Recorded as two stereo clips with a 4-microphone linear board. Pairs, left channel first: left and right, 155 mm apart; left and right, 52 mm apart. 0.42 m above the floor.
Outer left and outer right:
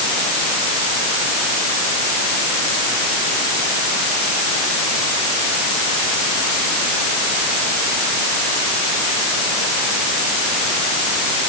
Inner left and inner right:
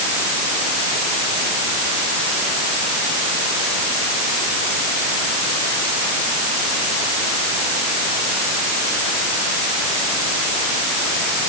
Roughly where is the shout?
I don't hear a shout.